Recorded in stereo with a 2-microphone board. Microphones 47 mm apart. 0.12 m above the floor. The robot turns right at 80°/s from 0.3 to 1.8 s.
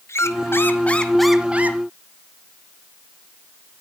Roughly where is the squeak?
Left.